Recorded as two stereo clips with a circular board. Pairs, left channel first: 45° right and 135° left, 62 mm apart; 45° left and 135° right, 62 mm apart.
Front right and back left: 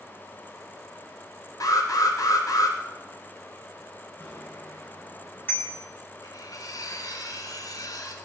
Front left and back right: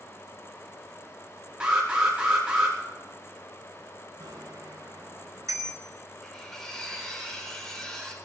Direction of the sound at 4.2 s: 100° right.